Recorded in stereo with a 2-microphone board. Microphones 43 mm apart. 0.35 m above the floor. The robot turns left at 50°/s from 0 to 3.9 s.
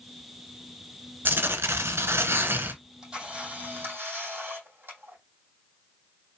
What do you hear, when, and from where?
1.2 s tearing paper: 55° right, 0.7 m; by 2.7 s 130° right, 0.7 m
2.8 s a camera shutter: 5° right, 3 m; by 5.2 s 55° right, 3 m